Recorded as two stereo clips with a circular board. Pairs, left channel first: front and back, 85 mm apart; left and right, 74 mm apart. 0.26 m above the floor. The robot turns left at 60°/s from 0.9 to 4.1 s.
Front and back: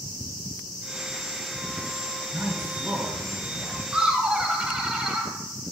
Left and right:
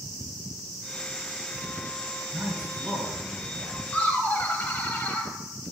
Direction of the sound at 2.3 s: 120° right.